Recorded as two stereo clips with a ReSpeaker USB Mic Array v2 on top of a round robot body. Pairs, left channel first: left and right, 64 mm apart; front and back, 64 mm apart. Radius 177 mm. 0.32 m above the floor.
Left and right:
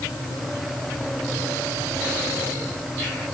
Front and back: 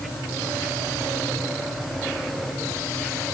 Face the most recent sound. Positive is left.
No sound to turn to.